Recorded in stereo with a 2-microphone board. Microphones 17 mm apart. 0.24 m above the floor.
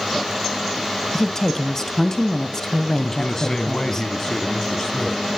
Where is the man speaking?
35° left (ahead or behind), 1.7 m.